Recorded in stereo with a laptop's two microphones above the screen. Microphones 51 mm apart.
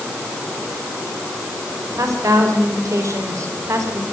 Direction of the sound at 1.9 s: 80° right.